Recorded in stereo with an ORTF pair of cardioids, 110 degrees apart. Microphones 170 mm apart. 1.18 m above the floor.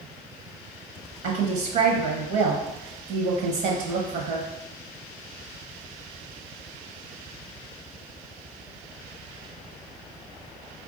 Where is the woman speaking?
70° right, 0.9 m.